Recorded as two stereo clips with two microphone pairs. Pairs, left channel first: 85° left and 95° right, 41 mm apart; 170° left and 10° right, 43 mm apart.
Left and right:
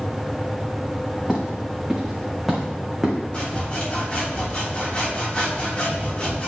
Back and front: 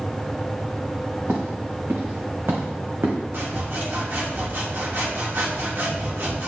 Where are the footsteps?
10° right, 4.5 m; by 3.1 s 5° right, 3.5 m.